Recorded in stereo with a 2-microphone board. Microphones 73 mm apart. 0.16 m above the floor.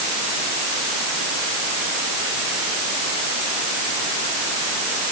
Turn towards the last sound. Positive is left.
No sound to turn to.